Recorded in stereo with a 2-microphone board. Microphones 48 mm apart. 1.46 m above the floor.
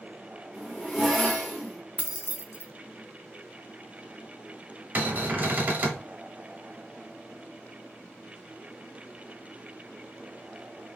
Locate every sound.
0.5 s a zipper: 10° left (ahead or behind), 1.0 m
2.0 s keys jangling: 35° right (ahead or behind), 0.5 m
5.0 s a cupboard door: 40° right (ahead or behind), 0.7 m